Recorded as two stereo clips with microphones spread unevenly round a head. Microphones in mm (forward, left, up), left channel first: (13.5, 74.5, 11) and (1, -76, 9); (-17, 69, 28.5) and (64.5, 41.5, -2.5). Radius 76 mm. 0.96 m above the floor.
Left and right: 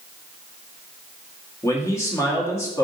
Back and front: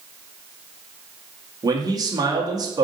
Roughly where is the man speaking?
Ahead.